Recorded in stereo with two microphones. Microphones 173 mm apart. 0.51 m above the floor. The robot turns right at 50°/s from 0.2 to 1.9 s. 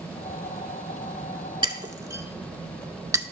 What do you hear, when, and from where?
1.6 s breaking glass: 30° right (ahead or behind), 0.6 m; by 3.2 s 20° right (ahead or behind), 0.6 m